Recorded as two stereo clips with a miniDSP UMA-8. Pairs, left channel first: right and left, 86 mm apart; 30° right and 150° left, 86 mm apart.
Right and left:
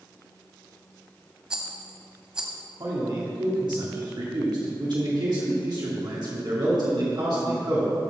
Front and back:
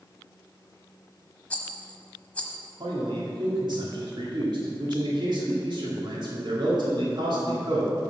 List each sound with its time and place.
1.5 s a rattle: 25° left, 1.1 m
2.8 s a man speaking: 120° left, 2.5 m